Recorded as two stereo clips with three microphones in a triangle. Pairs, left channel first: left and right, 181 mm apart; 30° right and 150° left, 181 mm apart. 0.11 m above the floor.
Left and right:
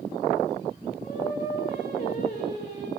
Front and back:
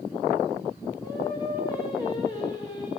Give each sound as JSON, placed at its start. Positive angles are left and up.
{"t": 1.0, "sound": "singing", "azimuth_deg": 40, "distance_m": 7.5}